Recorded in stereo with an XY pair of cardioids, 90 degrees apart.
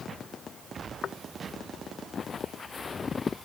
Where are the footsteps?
65° left; by 3.5 s 35° left.